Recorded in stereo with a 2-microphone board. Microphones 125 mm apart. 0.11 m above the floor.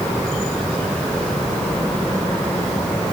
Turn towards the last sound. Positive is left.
No sound to turn to.